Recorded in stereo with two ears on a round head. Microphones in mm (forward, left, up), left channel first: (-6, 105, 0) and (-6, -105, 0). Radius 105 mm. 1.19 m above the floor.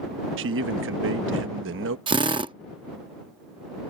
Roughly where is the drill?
Right.